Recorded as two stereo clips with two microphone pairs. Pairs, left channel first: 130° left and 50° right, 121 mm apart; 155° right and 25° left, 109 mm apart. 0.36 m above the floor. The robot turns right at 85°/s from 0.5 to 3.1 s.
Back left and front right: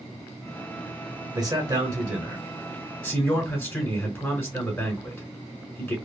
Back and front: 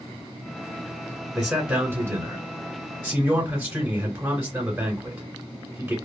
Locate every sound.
1.4 s a man speaking: 65° right, 1.6 m; by 6.0 s 85° left, 1.6 m